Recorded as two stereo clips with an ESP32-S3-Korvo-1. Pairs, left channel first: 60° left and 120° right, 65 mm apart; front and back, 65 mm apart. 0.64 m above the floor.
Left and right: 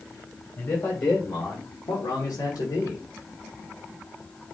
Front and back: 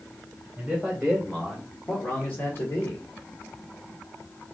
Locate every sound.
0.6 s a man speaking: 105° left, 1.7 m; by 3.0 s 35° left, 1.4 m